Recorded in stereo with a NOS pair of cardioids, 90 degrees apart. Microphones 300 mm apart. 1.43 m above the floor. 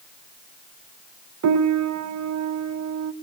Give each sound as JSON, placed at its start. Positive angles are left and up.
{"t": 1.4, "sound": "a piano", "azimuth_deg": -65, "distance_m": 1.5}